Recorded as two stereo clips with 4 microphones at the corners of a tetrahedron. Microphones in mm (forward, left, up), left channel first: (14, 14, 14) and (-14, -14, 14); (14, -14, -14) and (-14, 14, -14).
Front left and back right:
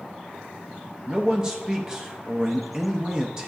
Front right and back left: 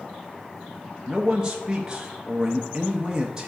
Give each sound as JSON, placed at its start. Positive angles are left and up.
{"t": 1.1, "sound": "a man speaking", "azimuth_deg": 180, "distance_m": 0.6}